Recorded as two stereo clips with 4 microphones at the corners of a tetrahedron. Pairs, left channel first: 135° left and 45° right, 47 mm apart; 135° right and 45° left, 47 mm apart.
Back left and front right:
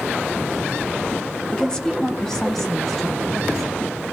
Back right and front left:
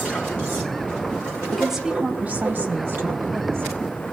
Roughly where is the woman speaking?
Behind left.